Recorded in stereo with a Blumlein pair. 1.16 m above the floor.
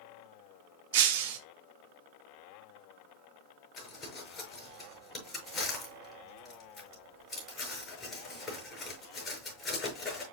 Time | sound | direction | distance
0.9 | breaking glass | 50° right | 1.0 m
3.8 | crumpling | 25° left | 6 m